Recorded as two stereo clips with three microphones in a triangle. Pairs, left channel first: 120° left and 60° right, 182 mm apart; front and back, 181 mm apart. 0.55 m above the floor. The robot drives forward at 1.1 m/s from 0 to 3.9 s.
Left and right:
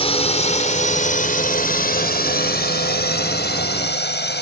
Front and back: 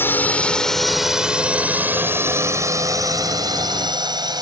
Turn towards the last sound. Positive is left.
turn(degrees=115)